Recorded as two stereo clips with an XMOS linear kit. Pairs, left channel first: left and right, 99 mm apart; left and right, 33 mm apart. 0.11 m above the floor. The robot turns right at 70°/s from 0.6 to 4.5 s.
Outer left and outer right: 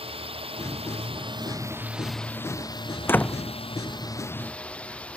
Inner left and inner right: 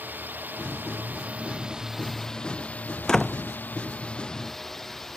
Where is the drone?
105° right; by 5.2 s 170° left.